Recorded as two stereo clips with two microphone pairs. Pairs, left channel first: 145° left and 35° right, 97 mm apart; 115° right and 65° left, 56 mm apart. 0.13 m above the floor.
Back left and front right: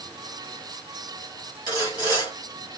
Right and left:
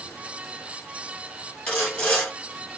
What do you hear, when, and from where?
1.7 s sawing: 170° right, 2 m